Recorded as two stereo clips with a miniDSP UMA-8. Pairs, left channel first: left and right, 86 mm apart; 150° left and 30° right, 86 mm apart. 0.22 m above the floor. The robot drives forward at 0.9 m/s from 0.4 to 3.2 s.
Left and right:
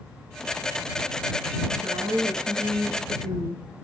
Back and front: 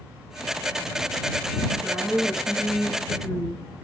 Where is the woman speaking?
110° right, 3 m; by 3.6 s 130° right, 3.5 m.